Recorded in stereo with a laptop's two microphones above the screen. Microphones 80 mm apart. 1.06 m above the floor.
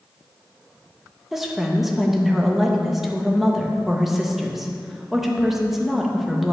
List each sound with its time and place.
1.3 s a woman speaking: 5° right (ahead or behind), 1.1 m